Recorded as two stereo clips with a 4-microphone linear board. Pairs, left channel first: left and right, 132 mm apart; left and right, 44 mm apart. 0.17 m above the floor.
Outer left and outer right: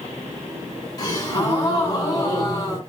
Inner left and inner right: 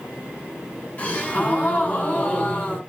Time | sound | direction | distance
1.0 | a gasp | 30° left (ahead or behind) | 1.8 m